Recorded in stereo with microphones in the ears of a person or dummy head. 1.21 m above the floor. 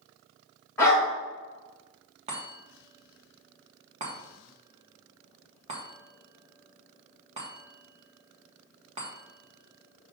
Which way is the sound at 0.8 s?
15° left (ahead or behind).